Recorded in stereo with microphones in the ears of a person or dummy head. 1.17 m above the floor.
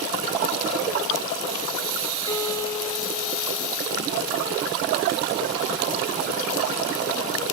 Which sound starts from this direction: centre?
A guitar, at 2.3 s.